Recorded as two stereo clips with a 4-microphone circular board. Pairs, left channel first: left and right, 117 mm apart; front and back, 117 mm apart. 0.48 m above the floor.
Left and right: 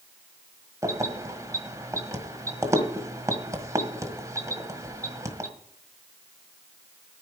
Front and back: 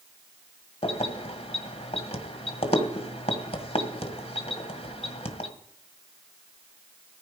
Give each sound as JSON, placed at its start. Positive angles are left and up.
{"t": 0.8, "sound": "keys jangling", "azimuth_deg": -30, "distance_m": 1.6}